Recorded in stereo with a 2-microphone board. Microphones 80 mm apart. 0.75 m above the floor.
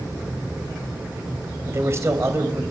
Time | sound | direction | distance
1.7 | a man speaking | 35° right (ahead or behind) | 3 m